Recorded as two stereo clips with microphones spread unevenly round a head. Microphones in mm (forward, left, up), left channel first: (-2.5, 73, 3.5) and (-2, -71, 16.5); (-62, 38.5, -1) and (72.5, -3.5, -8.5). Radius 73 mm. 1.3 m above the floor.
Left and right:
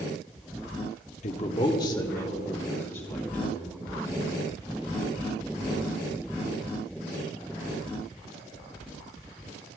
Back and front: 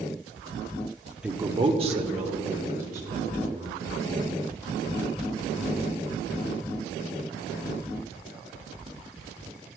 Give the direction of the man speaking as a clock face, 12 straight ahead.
10 o'clock.